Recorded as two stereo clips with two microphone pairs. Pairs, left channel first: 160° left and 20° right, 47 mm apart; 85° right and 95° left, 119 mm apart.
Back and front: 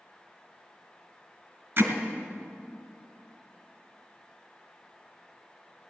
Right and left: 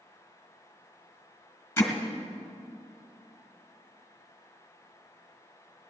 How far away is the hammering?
About 1.9 m.